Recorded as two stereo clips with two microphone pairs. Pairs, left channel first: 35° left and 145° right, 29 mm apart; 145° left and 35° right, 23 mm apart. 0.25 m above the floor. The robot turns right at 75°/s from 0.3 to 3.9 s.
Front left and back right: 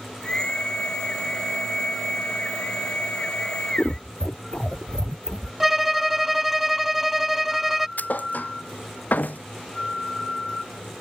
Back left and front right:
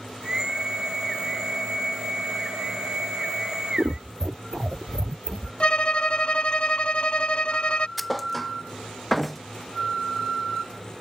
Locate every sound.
3.8 s scissors: 20° right; by 5.5 s 15° right
5.6 s a violin: 135° left
8.0 s a thud: 55° left